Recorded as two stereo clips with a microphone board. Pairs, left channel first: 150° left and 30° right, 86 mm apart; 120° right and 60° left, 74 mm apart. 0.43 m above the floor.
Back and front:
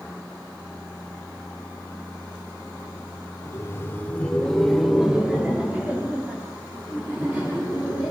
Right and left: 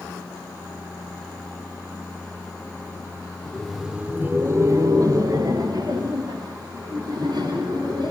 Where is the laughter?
170° left, 1.2 m; by 8.1 s 35° left, 4.5 m.